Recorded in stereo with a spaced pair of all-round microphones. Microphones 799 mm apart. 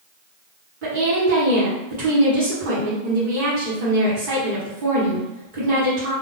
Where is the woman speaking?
80° right, 1.1 m.